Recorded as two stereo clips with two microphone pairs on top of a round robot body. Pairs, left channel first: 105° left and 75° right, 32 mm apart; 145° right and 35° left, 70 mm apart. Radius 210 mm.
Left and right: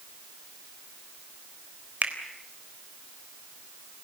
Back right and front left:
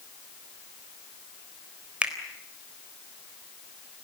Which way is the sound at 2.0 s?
40° right.